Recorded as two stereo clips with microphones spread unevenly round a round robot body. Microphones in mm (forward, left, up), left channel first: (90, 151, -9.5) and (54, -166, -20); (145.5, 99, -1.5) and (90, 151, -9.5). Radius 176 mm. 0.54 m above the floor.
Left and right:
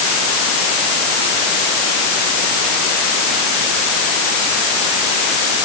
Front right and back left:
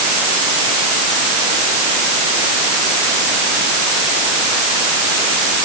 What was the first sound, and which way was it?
Only background noise.